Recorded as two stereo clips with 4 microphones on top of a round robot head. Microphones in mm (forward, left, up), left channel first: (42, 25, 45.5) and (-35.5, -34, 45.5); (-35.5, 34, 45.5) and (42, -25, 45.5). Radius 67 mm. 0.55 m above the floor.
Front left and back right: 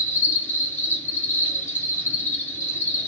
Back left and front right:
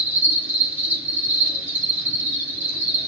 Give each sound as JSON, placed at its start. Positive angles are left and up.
{"t": 0.0, "sound": "an insect", "azimuth_deg": 0, "distance_m": 1.8}